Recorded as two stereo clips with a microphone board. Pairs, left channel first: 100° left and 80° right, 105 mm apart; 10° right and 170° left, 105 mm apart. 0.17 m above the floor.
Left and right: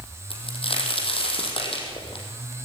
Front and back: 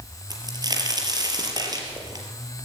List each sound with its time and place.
0.3 s a crack: 120° left, 4 m